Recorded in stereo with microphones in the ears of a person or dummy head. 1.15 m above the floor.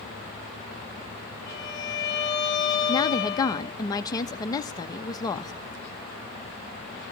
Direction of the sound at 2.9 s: 15° left (ahead or behind).